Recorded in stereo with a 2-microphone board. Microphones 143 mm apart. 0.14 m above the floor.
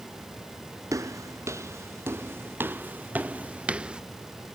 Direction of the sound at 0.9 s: 20° right (ahead or behind).